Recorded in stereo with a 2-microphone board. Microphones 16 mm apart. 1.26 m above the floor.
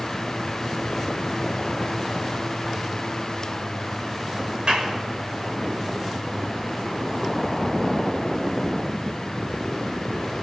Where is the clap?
80° right, 6 m.